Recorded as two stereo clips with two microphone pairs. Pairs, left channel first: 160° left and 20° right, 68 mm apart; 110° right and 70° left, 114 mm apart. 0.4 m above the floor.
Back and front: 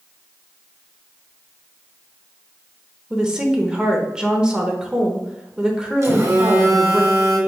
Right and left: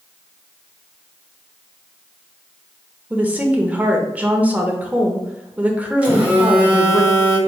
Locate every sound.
3.1 s a woman speaking: 25° left, 0.8 m
6.0 s a phone buzzing: 5° right, 1.5 m